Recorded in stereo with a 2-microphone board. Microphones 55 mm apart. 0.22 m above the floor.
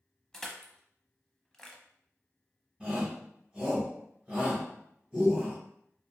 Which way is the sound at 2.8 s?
5° right (ahead or behind).